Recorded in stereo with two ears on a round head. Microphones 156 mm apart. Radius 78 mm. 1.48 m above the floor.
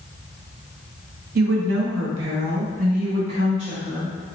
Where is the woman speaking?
55° right (ahead or behind), 0.9 m; by 4.1 s 35° right (ahead or behind), 2.5 m.